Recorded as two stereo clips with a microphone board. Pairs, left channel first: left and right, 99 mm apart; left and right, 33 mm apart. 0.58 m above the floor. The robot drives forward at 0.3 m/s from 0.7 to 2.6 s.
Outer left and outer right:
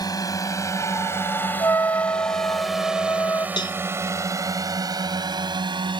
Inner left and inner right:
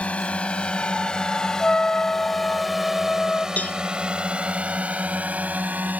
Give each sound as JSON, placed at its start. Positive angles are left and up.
{"t": 0.0, "sound": "a drone", "side_deg": 40}
{"t": 1.6, "sound": "a trumpet", "side_deg": 30}
{"t": 3.6, "sound": "a cowbell", "side_deg": 50}